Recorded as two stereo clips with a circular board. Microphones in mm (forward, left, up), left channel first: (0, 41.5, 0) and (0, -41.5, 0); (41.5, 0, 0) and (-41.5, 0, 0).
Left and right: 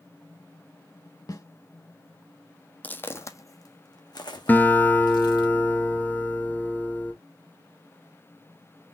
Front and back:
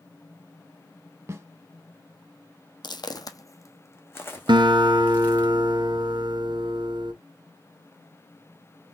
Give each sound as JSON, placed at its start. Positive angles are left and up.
{"t": 1.3, "sound": "a snare drum", "azimuth_deg": 125, "distance_m": 0.8}
{"t": 2.8, "sound": "footsteps", "azimuth_deg": 20, "distance_m": 0.6}
{"t": 4.5, "sound": "a guitar", "azimuth_deg": 160, "distance_m": 0.7}